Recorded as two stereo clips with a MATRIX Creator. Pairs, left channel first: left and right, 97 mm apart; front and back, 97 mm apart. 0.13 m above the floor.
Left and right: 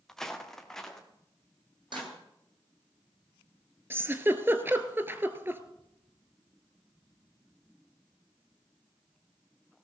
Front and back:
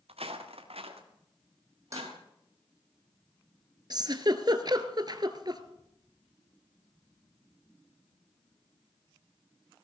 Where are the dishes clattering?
125° right, 3.5 m.